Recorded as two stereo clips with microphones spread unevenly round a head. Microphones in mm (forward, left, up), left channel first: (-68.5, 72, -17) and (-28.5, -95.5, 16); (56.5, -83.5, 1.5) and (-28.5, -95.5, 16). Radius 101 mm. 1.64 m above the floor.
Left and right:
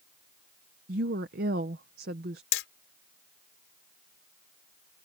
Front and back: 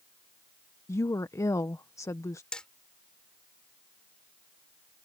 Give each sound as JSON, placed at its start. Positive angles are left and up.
{"t": 0.9, "sound": "a woman speaking", "azimuth_deg": -45}
{"t": 2.5, "sound": "hammering", "azimuth_deg": 95}